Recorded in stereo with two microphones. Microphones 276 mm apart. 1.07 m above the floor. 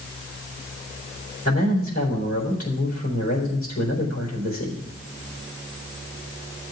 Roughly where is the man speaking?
Left.